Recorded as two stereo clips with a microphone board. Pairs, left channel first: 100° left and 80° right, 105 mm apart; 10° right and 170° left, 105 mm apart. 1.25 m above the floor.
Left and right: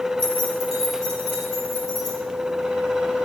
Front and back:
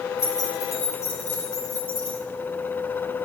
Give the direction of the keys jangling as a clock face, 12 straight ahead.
2 o'clock.